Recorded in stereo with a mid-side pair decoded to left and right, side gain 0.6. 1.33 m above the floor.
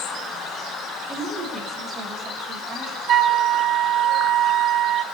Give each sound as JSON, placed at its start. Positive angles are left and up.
{"t": 1.1, "sound": "a woman speaking", "azimuth_deg": -30, "distance_m": 8.0}
{"t": 3.1, "sound": "a flute", "azimuth_deg": -50, "distance_m": 1.8}